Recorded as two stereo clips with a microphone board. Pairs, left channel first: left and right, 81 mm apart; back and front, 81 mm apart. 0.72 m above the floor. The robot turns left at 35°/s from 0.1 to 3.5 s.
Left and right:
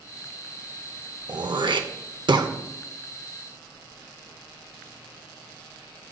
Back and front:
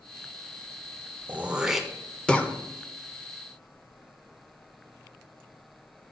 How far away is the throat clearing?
About 0.6 m.